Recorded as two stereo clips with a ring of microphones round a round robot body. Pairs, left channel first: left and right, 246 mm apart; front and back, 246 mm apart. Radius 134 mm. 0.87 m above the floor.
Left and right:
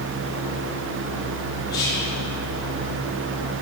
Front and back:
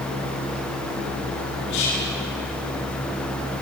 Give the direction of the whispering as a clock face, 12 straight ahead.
12 o'clock.